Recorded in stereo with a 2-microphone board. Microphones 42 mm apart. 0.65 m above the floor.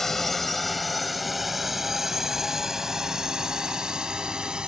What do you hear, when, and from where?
0.0 s a drone: 10° left (ahead or behind); by 4.7 s 15° right (ahead or behind)